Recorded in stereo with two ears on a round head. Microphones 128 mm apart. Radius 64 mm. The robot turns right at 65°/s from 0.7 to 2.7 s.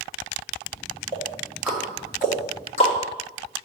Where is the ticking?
35° right (ahead or behind), 1.8 m; by 2.9 s 40° left (ahead or behind), 1.8 m.